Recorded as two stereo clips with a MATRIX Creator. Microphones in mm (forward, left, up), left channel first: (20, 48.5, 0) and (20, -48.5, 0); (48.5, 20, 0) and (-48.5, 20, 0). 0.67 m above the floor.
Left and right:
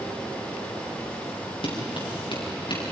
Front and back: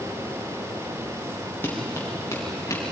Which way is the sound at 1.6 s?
70° left.